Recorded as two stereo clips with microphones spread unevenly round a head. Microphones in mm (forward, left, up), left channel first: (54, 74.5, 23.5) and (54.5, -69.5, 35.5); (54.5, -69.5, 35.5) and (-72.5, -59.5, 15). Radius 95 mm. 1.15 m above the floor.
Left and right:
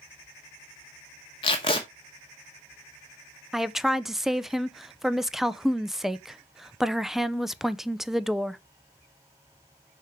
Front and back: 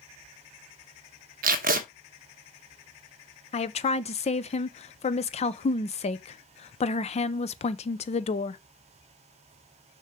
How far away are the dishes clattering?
No dishes clattering in this recording.